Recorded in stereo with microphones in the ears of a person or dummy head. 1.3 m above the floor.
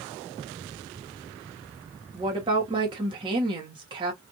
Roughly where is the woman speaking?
Right.